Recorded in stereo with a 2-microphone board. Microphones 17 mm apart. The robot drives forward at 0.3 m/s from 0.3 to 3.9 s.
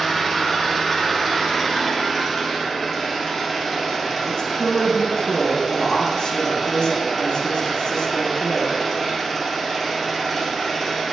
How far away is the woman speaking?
About 0.8 m.